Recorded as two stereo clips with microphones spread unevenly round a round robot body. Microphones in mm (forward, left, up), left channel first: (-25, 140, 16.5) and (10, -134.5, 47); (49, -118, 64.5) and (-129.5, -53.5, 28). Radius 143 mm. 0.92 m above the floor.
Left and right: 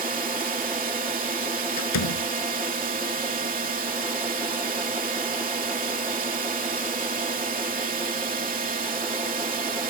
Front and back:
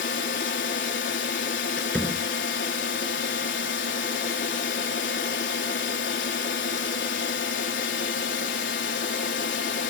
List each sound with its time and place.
0.0 s a drone: 20° right
1.8 s a door slam: 65° left